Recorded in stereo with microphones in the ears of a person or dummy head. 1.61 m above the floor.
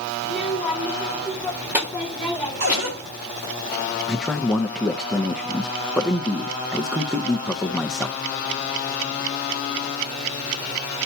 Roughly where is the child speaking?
Centre.